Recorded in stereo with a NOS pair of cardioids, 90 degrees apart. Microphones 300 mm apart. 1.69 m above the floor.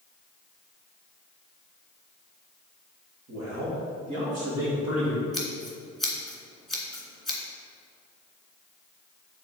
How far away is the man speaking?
About 2.5 m.